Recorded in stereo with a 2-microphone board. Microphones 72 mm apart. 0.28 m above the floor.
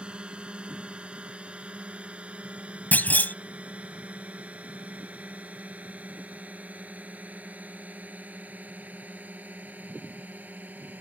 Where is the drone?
15° right (ahead or behind); by 11.0 s 25° right (ahead or behind).